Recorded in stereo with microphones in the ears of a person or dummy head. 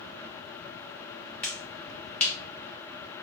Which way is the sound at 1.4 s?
5° left (ahead or behind).